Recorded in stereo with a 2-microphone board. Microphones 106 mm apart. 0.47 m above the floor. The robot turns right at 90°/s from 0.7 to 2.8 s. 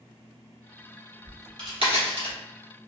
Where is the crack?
15° right (ahead or behind), 1.7 m; by 2.4 s 65° right (ahead or behind), 1.7 m.